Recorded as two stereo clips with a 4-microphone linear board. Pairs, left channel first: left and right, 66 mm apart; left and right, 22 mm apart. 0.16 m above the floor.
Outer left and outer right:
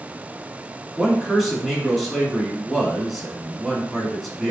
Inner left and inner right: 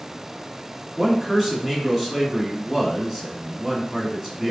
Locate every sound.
1.0 s a man speaking: centre (ahead or behind), 1.2 m